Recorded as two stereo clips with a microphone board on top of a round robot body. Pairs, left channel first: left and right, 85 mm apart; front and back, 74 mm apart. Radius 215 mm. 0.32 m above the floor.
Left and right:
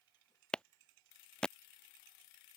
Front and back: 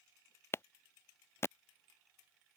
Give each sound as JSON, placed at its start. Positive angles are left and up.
{"t": 0.5, "sound": "a clap", "azimuth_deg": 15}